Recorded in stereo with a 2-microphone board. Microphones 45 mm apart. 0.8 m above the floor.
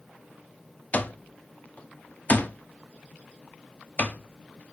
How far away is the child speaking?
I don't hear a child speaking.